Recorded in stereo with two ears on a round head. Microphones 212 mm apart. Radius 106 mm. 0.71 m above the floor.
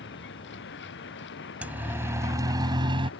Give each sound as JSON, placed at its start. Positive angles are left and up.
{"t": 0.0, "sound": "a vehicle", "side_deg": 50}
{"t": 1.6, "sound": "a siren", "side_deg": -5}